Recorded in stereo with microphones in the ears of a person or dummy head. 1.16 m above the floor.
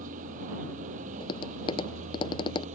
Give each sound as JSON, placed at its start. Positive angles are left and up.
{"t": 0.0, "sound": "a vehicle", "side_deg": -45}
{"t": 1.2, "sound": "tapping", "side_deg": 25}